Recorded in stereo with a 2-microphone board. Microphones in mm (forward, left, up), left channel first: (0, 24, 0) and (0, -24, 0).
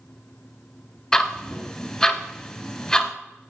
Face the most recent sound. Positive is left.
turn(degrees=10)  # may be behind; listen again after turning